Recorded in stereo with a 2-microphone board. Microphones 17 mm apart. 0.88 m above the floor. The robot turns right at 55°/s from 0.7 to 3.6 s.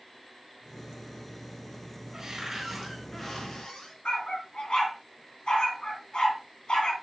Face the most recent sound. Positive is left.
turn(degrees=65)  # may be behind; listen again after turning